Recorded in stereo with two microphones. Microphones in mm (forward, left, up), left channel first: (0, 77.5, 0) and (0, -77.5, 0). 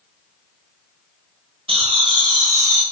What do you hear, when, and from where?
1.7 s laughter: 35° right (ahead or behind), 1.2 m; by 2.8 s 15° right (ahead or behind), 1.1 m